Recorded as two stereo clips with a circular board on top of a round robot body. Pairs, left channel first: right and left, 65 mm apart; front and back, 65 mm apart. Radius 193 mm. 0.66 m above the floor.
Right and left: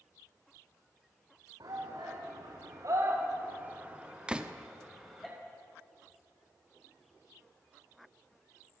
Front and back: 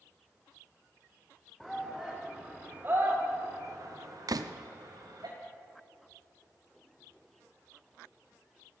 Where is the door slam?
165° left, 0.9 m.